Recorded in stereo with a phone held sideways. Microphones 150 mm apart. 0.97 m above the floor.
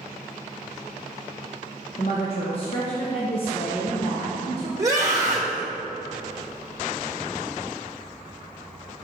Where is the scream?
20° right (ahead or behind), 1.2 m.